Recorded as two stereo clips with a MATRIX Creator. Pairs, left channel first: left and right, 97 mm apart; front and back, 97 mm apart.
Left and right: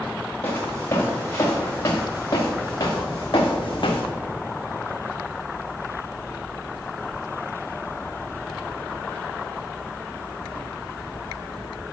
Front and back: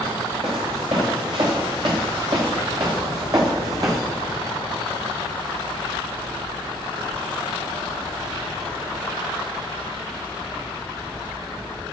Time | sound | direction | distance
0.4 | footsteps | 155° left | 3 m